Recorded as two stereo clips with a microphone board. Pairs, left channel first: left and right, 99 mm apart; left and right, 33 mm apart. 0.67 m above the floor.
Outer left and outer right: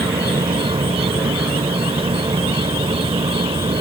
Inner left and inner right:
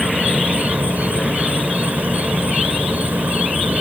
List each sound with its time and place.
0.0 s an insect: 70° right (ahead or behind)